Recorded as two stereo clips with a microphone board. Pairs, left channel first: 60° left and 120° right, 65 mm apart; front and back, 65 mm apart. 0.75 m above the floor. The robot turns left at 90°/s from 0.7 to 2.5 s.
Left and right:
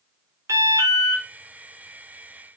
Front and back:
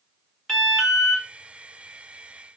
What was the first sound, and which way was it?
An alarm, 85° right.